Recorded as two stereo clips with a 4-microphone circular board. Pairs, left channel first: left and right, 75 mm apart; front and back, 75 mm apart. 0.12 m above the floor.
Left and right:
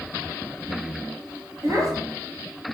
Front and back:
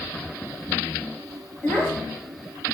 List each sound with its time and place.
1.6 s a child speaking: 65° right, 1.1 m